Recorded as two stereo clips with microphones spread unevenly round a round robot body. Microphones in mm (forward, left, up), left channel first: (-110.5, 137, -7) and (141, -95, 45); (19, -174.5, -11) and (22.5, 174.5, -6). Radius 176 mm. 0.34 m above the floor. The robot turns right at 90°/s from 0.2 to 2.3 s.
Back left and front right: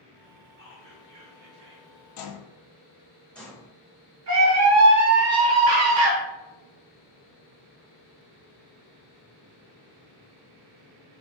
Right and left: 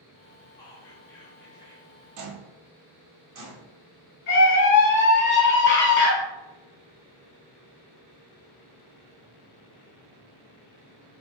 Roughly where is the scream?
Ahead right.